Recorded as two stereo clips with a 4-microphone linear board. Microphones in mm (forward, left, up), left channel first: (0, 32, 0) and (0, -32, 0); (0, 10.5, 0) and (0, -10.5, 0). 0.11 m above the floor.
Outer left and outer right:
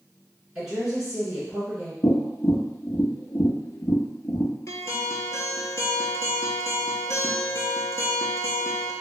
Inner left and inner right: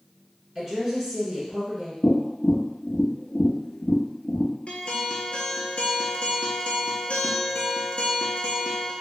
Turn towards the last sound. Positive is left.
turn(degrees=55)  # may be behind; listen again after turning